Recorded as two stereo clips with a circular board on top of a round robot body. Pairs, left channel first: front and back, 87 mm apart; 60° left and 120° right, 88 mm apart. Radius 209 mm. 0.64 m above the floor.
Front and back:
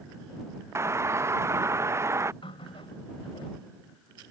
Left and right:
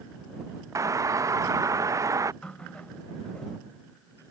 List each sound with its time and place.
0.8 s a doorbell: 140° right
2.4 s a running tap: 20° right